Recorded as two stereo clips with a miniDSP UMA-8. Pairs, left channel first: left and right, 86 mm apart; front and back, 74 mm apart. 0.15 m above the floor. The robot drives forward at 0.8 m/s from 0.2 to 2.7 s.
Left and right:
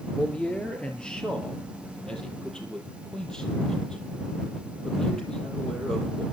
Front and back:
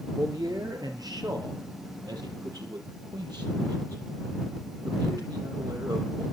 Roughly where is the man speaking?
Behind.